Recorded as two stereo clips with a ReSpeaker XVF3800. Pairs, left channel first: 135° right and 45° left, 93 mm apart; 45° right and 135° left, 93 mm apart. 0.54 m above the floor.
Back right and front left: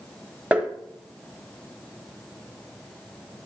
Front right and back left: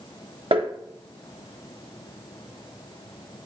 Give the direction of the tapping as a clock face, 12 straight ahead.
8 o'clock.